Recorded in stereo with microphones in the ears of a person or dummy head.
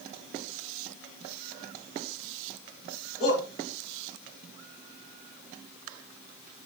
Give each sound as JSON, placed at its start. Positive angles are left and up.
{"t": 3.2, "sound": "a shout", "side_deg": 15, "distance_m": 3.5}